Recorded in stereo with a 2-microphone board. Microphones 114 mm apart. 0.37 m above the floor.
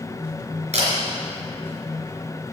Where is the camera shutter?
70° right (ahead or behind), 3.5 m.